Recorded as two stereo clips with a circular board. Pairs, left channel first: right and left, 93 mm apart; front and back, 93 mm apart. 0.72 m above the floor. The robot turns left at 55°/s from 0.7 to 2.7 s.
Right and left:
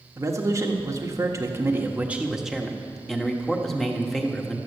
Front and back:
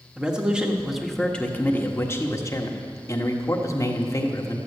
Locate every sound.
0.2 s a man speaking: 105° left, 1.3 m; by 4.6 s 5° right, 1.3 m